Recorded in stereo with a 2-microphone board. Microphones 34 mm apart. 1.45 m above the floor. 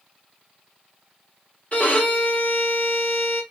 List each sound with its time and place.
1.7 s a violin: 40° left (ahead or behind), 1.3 m